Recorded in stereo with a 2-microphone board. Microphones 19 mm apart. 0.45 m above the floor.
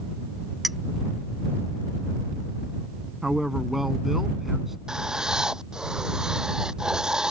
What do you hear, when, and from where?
0.6 s a clink: 10° right (ahead or behind)
3.2 s a man speaking: 10° right (ahead or behind)
4.9 s writing: 40° right (ahead or behind)